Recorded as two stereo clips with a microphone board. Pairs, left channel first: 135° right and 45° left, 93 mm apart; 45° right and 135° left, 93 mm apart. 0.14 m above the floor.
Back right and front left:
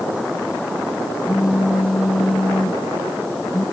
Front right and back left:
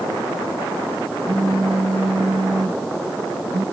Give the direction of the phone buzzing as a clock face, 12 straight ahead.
8 o'clock.